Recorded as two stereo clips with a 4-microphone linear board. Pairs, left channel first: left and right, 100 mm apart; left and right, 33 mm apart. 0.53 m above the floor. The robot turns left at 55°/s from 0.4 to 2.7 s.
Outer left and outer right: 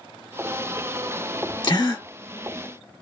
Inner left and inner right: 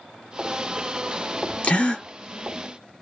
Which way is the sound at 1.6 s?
45° left (ahead or behind).